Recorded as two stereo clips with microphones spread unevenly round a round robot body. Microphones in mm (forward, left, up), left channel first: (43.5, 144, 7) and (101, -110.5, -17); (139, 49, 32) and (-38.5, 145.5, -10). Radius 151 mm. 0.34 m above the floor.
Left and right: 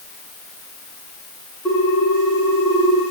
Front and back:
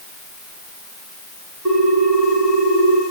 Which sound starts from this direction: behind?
A ringtone, at 1.6 s.